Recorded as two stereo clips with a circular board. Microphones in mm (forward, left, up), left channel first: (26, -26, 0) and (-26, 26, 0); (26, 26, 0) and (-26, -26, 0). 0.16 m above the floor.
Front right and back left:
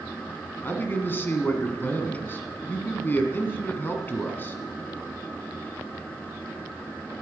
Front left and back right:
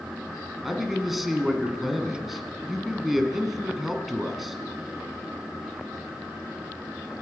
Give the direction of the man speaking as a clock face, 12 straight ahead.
2 o'clock.